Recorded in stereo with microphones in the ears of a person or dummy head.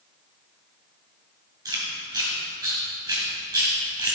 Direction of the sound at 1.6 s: 20° right (ahead or behind).